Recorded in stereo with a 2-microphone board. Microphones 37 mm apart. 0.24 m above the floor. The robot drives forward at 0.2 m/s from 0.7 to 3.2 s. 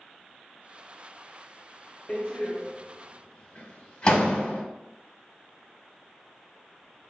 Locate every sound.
2.1 s a door slam: 25° left (ahead or behind), 0.9 m